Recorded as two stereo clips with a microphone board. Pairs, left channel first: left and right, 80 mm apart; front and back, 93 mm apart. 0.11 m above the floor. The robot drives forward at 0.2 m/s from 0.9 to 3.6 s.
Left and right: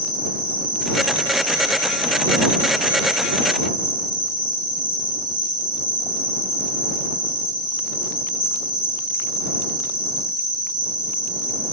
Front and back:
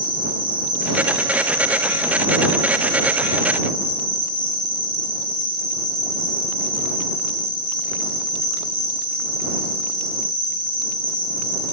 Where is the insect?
100° right, 2.5 m; by 11.7 s 115° right, 2.5 m.